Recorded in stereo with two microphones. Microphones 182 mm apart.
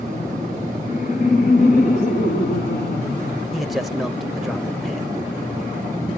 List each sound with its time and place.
0.8 s laughter: 45° left (ahead or behind), 1.9 m; by 3.4 s 75° left (ahead or behind), 3.5 m
3.5 s a man speaking: centre (ahead or behind), 1.1 m